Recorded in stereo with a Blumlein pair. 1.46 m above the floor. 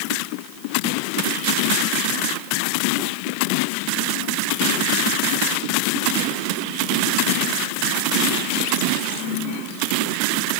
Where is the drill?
No drill in this recording.